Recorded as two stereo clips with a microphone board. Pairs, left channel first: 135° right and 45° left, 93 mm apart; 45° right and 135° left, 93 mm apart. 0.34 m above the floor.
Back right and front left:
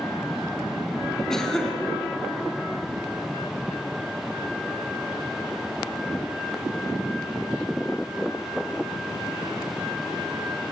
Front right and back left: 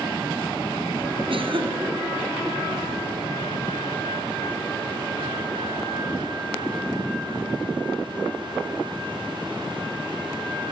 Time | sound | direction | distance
1.3 | a cough | 140° left | 3 m